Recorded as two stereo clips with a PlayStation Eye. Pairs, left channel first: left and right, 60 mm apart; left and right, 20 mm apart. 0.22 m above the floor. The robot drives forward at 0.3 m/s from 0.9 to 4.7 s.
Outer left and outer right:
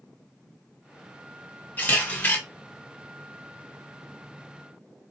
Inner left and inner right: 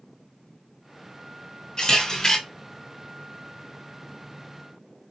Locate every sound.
1.8 s a camera shutter: 30° left (ahead or behind), 1.6 m